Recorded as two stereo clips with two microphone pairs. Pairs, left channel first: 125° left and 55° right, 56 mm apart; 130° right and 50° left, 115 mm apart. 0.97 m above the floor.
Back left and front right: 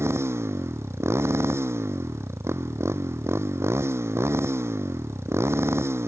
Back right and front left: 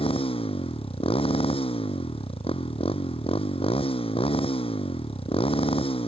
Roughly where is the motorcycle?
Right.